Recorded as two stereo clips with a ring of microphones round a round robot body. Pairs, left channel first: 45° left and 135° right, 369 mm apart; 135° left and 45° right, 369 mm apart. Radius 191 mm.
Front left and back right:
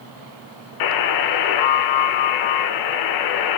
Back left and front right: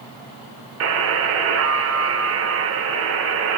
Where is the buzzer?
10° left, 0.6 m.